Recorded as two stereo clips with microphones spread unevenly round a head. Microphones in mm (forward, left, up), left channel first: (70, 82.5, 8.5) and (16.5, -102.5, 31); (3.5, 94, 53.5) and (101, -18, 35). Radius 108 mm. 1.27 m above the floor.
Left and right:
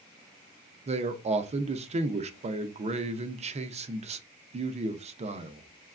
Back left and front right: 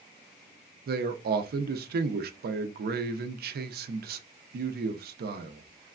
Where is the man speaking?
45° right, 0.5 m.